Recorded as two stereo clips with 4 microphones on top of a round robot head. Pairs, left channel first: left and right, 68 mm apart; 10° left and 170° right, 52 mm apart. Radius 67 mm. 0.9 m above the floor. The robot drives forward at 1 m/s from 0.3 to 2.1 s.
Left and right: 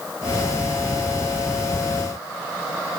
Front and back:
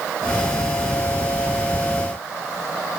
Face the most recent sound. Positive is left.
No sound to turn to.